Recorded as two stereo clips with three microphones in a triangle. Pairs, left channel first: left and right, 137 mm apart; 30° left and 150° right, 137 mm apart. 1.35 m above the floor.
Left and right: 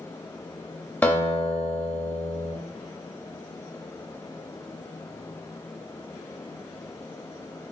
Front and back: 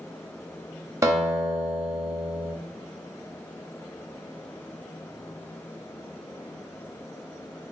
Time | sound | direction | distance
1.0 | a guitar | 160° left | 0.8 m